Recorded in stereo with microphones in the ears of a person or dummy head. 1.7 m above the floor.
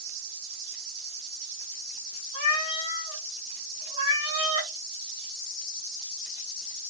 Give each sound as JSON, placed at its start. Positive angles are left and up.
{"t": 2.3, "sound": "a cat meowing", "side_deg": 30, "distance_m": 1.5}